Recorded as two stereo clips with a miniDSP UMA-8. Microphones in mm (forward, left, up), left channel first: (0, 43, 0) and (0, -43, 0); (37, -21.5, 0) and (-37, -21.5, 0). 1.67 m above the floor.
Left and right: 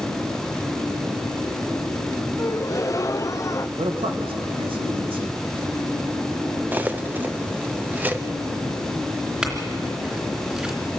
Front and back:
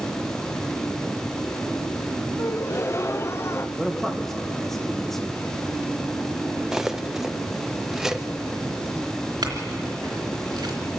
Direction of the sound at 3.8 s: 85° right.